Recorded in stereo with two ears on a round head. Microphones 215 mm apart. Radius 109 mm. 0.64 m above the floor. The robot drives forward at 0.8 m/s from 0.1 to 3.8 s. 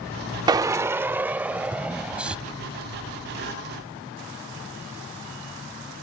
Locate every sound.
0.5 s a drill: 15° right (ahead or behind); by 2.4 s 5° right (ahead or behind)